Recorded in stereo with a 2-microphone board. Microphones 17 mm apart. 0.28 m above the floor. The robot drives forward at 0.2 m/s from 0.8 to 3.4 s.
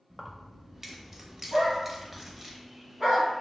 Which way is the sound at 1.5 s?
40° right (ahead or behind).